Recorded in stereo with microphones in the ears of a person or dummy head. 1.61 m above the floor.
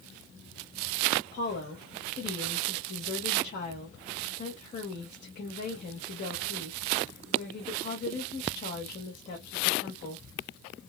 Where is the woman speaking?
45° left (ahead or behind), 0.9 m.